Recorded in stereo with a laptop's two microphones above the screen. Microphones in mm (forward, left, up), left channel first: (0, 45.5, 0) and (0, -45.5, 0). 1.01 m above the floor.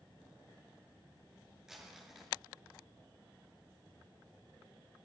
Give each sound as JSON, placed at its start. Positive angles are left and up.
{"t": 1.7, "sound": "crumpling", "side_deg": -5, "distance_m": 5.0}